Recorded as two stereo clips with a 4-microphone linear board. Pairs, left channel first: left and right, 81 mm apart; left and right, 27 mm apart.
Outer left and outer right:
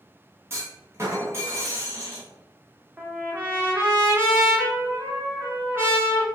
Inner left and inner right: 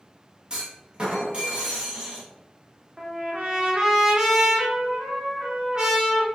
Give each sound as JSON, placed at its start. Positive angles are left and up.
{"t": 0.5, "sound": "a clunk", "side_deg": -35, "distance_m": 1.1}
{"t": 3.0, "sound": "a trumpet", "side_deg": -30, "distance_m": 1.1}